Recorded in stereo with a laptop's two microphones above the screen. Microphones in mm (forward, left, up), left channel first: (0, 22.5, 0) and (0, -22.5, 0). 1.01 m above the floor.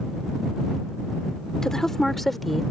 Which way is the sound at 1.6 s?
10° left (ahead or behind).